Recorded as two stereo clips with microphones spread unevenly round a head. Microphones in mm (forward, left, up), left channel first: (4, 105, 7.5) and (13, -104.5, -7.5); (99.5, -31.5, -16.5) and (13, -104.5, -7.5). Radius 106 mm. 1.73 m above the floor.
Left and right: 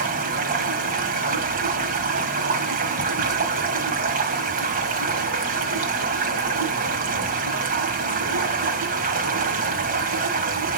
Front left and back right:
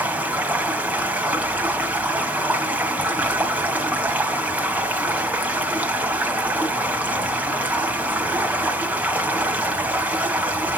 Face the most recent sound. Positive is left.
turn(degrees=-80)